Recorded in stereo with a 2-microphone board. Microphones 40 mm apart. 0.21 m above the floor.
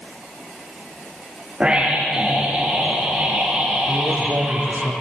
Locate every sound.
1.6 s a scream: 25° right (ahead or behind), 6.5 m
3.9 s a man speaking: 70° right (ahead or behind), 5 m